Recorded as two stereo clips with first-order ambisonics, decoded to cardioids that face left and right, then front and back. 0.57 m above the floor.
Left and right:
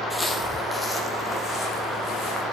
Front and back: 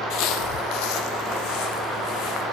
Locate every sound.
0.1 s footsteps: 5° left, 0.9 m; by 2.4 s 15° left, 2.5 m